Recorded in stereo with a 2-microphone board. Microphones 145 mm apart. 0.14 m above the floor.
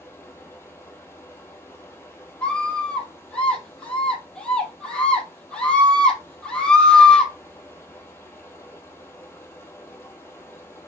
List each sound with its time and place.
0.0 s running water: 15° left (ahead or behind), 2.5 m
2.4 s a scream: 5° left (ahead or behind), 4.5 m